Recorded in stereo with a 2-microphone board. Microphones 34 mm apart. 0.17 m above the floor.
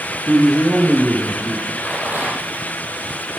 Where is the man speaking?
50° right (ahead or behind), 4 m; by 1.8 s 75° right (ahead or behind), 4.5 m.